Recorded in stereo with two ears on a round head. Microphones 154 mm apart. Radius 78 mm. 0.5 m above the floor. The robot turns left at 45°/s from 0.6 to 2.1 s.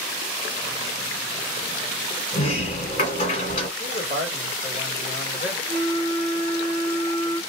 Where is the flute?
55° right (ahead or behind), 0.7 m.